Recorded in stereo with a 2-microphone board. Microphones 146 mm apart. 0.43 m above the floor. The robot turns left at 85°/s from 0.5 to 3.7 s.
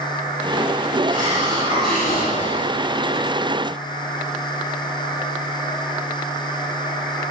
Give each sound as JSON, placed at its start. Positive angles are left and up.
{"t": 1.1, "sound": "a hiss", "azimuth_deg": -115, "distance_m": 8.0}